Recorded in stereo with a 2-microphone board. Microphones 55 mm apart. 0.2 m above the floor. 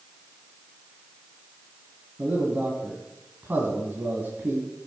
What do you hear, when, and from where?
2.2 s a man speaking: 35° right (ahead or behind), 2 m